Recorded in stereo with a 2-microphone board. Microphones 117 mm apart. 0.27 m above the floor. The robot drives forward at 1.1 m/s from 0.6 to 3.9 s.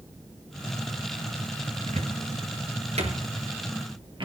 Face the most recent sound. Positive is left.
turn(degrees=-45)  # may be behind; listen again after turning